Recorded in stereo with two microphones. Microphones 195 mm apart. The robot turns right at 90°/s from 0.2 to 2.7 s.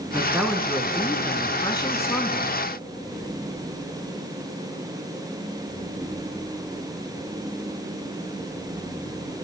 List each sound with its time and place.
0.1 s a man speaking: 10° right (ahead or behind), 1.1 m; by 2.5 s centre (ahead or behind), 1.1 m